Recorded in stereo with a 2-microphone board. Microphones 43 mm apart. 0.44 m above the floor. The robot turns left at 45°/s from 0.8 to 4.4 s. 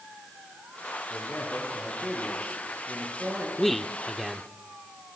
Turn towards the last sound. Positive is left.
turn(degrees=-5)  # may be behind; listen again after turning